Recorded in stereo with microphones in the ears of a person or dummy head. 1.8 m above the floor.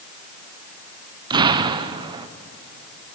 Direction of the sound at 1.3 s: 20° right (ahead or behind).